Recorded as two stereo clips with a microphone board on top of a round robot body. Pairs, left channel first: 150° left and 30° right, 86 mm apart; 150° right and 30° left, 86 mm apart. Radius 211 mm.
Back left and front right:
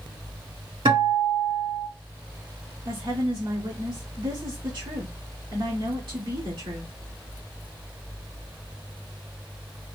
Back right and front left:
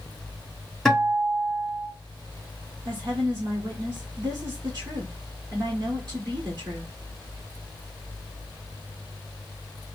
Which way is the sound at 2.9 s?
10° right.